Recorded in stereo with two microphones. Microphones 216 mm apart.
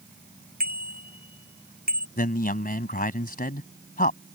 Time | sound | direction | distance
0.6 | a bicycle bell | 45° right (ahead or behind) | ?
2.2 | a man speaking | 40° left (ahead or behind) | ?